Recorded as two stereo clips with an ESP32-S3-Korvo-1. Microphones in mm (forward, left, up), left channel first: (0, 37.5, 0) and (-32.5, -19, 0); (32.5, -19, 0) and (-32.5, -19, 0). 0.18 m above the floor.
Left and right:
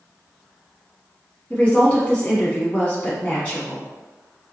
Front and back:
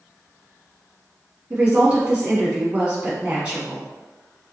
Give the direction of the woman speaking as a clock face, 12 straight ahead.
8 o'clock.